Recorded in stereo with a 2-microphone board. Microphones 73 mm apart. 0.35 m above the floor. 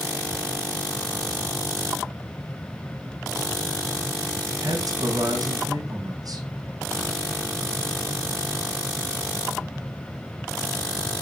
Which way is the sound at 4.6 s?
60° right (ahead or behind).